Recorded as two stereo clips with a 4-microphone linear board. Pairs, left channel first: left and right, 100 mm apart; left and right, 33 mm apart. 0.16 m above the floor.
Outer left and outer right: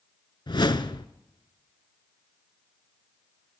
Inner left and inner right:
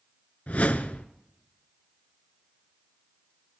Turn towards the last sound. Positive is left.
turn(degrees=55)  # may be behind; listen again after turning